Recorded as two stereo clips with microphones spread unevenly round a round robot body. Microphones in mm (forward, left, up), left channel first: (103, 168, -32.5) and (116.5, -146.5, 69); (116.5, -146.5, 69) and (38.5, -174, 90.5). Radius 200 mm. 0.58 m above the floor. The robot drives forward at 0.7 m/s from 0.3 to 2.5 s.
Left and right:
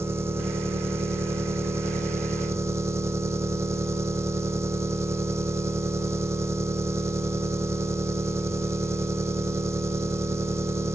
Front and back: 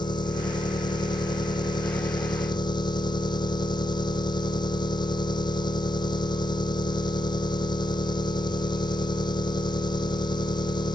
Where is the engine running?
5° right.